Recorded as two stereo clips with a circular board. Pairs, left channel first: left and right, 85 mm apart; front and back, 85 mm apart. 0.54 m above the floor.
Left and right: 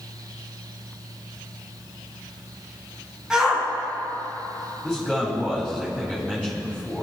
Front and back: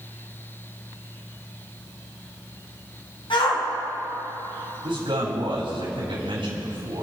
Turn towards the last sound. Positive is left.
turn(degrees=-175)